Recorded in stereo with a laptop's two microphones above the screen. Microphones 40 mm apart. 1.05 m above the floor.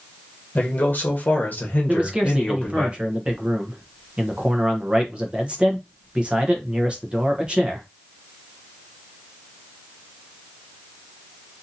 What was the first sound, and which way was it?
A man speaking, 40° left (ahead or behind).